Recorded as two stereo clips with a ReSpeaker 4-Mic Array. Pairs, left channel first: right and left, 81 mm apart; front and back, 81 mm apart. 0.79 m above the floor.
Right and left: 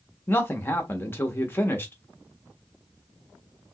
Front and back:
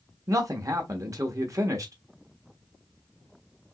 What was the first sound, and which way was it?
A man speaking, 145° right.